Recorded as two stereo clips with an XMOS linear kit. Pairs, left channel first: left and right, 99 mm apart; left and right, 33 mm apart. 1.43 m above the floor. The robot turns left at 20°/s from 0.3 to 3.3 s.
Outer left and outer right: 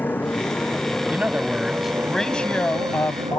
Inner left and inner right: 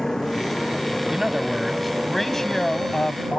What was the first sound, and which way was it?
A motorcycle, 20° left (ahead or behind).